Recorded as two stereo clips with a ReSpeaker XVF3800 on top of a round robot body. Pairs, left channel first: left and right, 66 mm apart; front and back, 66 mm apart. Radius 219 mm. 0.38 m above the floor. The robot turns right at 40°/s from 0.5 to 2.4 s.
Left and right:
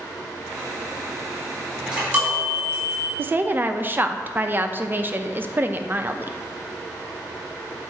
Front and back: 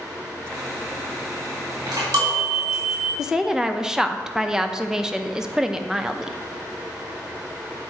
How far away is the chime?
About 3 m.